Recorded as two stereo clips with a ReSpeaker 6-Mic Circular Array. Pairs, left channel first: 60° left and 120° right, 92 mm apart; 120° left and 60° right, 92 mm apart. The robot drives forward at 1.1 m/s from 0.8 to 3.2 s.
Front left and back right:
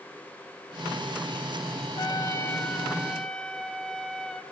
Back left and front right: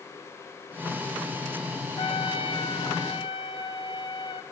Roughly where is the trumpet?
Left.